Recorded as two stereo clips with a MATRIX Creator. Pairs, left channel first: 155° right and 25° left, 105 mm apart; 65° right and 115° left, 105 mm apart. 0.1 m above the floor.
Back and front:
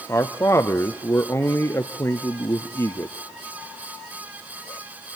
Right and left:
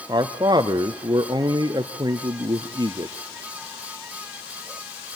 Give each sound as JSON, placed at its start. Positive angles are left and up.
{"t": 0.1, "sound": "a man speaking", "azimuth_deg": 145, "distance_m": 1.7}